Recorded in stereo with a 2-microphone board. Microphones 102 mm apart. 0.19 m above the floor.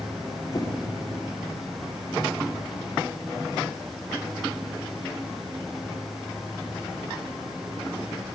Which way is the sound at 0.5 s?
35° left (ahead or behind).